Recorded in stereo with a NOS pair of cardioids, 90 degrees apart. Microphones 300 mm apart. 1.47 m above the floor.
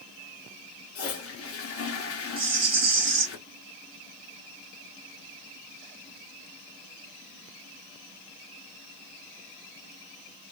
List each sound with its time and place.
0.9 s a toilet flushing: 50° left, 1.2 m
2.4 s a rattle: 45° right, 1.3 m